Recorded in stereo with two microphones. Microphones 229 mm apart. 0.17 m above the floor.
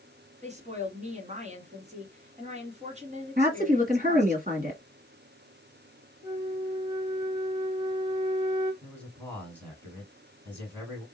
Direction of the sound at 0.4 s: 30° right (ahead or behind).